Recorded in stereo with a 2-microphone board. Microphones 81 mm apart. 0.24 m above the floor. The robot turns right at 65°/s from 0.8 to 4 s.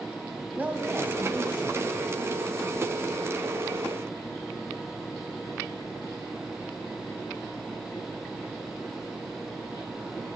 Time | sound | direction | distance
0.6 | a woman speaking | 20° right (ahead or behind) | 1.4 m